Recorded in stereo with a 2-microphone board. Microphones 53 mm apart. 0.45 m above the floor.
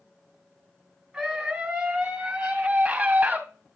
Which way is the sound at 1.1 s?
5° right (ahead or behind).